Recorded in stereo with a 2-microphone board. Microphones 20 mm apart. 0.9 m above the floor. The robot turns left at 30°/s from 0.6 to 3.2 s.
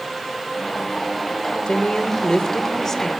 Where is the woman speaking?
65° left, 2.5 m; by 3.1 s 20° left, 2.5 m.